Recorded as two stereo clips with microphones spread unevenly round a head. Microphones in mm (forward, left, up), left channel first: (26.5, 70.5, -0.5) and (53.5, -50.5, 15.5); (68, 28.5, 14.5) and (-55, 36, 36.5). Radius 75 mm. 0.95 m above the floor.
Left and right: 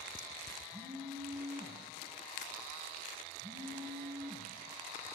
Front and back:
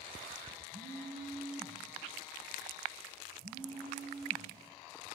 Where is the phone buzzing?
155° right, 3.5 m.